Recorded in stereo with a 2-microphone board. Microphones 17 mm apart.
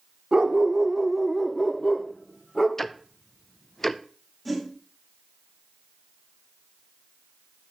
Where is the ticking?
20° left (ahead or behind), 0.5 m.